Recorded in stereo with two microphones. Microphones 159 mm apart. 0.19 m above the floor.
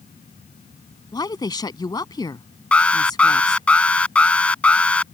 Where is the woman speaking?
25° left (ahead or behind).